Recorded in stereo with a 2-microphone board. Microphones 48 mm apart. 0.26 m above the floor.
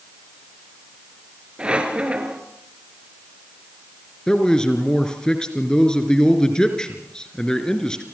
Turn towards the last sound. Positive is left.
turn(degrees=15)  # may be behind; listen again after turning